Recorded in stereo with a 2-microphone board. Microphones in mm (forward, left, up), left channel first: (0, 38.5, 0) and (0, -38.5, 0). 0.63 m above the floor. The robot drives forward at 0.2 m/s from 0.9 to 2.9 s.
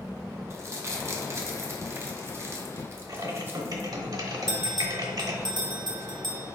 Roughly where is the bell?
Right.